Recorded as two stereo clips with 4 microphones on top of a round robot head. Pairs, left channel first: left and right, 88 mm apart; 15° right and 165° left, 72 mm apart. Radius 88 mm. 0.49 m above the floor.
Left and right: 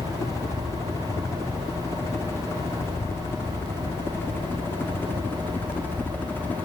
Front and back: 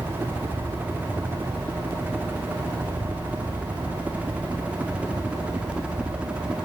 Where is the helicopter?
120° left.